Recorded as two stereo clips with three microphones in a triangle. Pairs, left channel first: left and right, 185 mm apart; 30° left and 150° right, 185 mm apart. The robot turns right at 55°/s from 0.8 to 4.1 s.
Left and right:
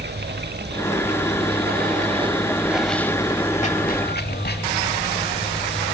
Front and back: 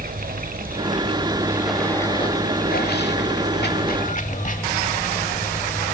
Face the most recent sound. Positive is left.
turn(degrees=70)